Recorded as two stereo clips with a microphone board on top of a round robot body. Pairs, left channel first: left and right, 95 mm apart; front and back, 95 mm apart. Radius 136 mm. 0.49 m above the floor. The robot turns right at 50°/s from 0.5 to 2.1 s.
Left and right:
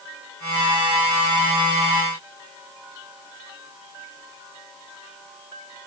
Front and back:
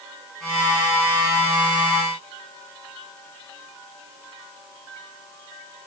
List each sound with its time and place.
Only background noise.